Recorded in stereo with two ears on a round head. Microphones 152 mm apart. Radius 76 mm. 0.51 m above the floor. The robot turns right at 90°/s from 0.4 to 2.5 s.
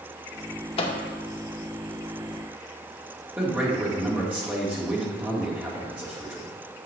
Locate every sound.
0.8 s a microwave: 35° left (ahead or behind), 0.6 m; by 1.0 s 30° left (ahead or behind), 0.6 m
3.4 s a man speaking: 10° right (ahead or behind), 1.3 m